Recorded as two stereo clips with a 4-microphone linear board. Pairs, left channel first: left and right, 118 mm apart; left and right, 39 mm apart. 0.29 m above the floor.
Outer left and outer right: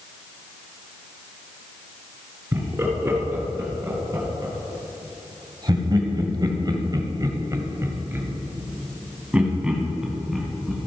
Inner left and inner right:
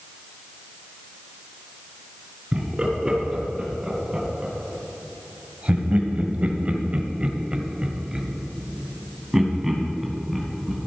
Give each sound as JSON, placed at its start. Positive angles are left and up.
{"t": 2.5, "sound": "laughter", "side_deg": -25, "distance_m": 3.0}